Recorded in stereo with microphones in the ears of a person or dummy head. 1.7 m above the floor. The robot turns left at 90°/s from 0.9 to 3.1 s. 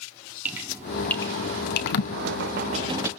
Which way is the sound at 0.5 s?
5° right (ahead or behind).